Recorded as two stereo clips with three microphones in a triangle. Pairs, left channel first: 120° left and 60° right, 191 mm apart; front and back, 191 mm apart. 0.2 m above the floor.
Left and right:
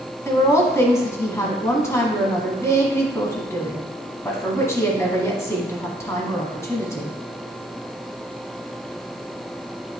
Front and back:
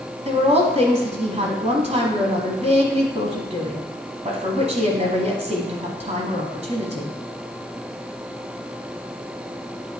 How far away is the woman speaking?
About 1.3 m.